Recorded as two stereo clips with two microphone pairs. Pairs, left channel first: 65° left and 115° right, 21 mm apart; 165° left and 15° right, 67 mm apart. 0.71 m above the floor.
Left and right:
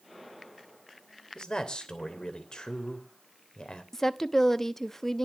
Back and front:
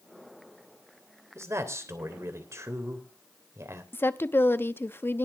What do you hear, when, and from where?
1.4 s a man speaking: 20° left, 3 m
3.9 s a woman speaking: 130° left, 0.8 m